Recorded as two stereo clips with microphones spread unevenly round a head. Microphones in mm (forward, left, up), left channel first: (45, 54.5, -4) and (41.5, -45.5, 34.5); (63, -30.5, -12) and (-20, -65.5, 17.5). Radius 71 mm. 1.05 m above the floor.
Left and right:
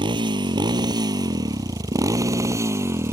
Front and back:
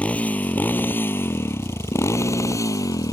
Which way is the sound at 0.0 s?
55° right.